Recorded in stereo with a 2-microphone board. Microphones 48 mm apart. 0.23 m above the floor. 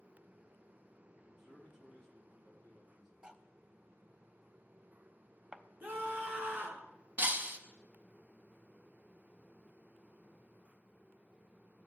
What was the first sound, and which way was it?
A man speaking, 5° right (ahead or behind).